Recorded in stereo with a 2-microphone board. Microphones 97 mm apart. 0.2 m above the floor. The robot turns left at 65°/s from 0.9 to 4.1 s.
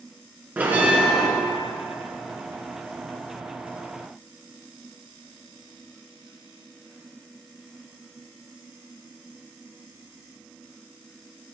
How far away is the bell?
About 3 m.